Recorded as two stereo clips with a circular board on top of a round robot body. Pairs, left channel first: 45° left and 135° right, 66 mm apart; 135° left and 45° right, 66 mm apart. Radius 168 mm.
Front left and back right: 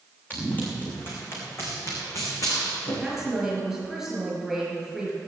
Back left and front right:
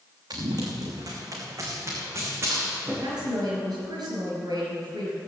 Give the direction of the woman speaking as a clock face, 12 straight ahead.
1 o'clock.